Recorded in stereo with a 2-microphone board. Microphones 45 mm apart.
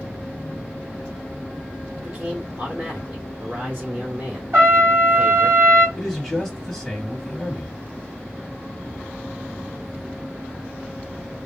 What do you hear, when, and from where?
2.0 s a man speaking: 40° right (ahead or behind), 0.9 m
4.5 s a trumpet: 45° right (ahead or behind), 1.7 m
6.0 s a man speaking: 10° right (ahead or behind), 0.9 m